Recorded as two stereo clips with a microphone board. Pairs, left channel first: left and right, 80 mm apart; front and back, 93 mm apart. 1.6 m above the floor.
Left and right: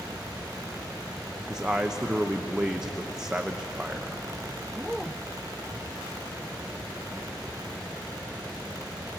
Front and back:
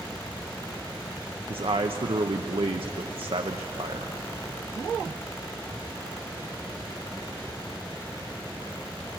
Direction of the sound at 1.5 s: 170° right.